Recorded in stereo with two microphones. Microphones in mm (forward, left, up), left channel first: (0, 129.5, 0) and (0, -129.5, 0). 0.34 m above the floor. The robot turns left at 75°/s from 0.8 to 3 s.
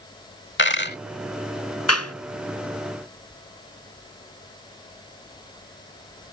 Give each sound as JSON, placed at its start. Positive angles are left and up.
{"t": 0.6, "sound": "a dropped coin", "side_deg": 45}
{"t": 1.9, "sound": "a clap", "side_deg": 70}